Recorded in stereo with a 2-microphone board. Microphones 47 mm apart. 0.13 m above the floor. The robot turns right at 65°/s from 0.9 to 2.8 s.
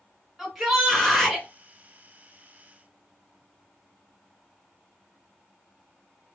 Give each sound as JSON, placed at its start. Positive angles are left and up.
{"t": 0.4, "sound": "a shout", "side_deg": -5, "distance_m": 1.6}